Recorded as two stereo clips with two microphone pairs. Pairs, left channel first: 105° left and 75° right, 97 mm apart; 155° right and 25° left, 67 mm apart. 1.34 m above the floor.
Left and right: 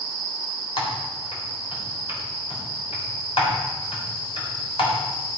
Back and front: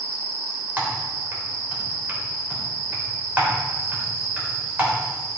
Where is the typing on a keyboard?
90° left, 3.5 m.